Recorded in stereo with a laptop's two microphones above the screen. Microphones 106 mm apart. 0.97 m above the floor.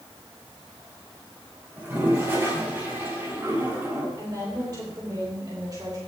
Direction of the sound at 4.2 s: 40° right (ahead or behind).